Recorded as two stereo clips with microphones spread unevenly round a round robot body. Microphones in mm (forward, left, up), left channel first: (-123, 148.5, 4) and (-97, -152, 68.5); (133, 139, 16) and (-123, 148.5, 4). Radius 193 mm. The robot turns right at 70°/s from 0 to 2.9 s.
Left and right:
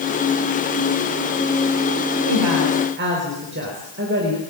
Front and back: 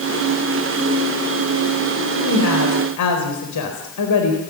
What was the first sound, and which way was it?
A woman speaking, 65° right.